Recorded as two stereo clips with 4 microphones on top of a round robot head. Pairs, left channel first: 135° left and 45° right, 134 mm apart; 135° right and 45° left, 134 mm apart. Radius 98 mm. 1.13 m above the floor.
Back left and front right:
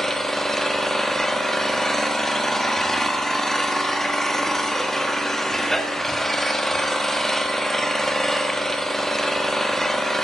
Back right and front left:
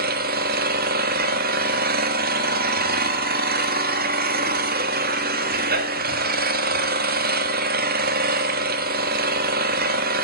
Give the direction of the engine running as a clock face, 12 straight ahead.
10 o'clock.